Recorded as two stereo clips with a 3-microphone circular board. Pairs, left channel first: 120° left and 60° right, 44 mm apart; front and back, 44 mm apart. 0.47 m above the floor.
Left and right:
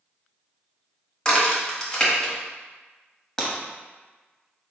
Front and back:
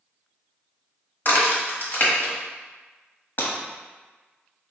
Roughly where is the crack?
Ahead left.